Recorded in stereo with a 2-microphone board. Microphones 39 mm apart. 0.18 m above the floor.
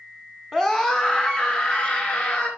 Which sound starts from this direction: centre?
A scream, at 0.5 s.